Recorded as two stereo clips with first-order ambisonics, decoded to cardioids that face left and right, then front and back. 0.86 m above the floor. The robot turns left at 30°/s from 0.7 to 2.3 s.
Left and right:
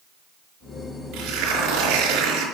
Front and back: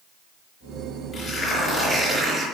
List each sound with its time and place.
1.1 s tearing paper: 65° right, 4.5 m; by 2.5 s 100° right, 4.5 m